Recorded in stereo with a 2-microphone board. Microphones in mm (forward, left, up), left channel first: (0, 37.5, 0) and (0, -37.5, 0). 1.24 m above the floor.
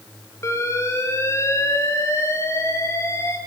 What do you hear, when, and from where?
0.4 s an alarm: 40° left (ahead or behind), 5 m